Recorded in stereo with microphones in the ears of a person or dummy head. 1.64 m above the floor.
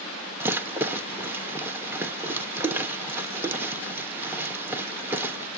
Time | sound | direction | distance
0.4 | a rattle | 10° right (ahead or behind) | 1.2 m